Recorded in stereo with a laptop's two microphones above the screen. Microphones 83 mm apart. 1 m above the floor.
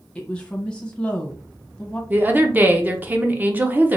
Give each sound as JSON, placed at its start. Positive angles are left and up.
{"t": 0.1, "sound": "a woman speaking", "side_deg": 10, "distance_m": 0.8}
{"t": 2.1, "sound": "a woman speaking", "side_deg": -25, "distance_m": 0.6}